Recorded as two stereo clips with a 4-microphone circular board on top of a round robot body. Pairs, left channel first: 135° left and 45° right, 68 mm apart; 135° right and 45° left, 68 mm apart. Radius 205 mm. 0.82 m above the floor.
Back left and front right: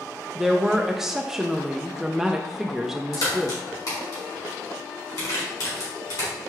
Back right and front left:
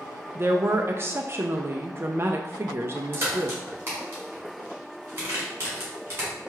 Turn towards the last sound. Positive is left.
turn(degrees=105)